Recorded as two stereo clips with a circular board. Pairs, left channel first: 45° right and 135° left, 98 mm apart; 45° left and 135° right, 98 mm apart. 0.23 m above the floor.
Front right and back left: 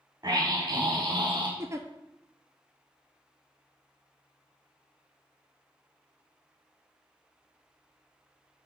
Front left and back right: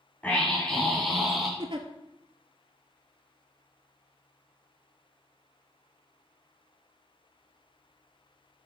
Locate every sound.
0.2 s a scream: 115° left, 1.7 m; by 1.5 s 140° left, 2.0 m
1.6 s a giggle: 165° right, 0.9 m